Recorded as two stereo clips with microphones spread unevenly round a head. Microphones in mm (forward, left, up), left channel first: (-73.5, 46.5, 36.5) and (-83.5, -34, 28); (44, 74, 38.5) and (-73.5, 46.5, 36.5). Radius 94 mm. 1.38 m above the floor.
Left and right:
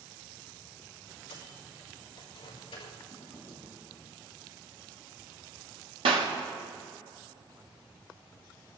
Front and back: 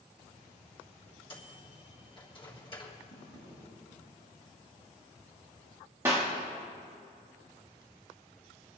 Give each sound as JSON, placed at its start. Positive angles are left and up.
{"t": 1.3, "sound": "a microwave", "azimuth_deg": 55, "distance_m": 3.5}
{"t": 3.1, "sound": "a drawer", "azimuth_deg": -10, "distance_m": 4.0}
{"t": 6.0, "sound": "a clap", "azimuth_deg": -90, "distance_m": 1.5}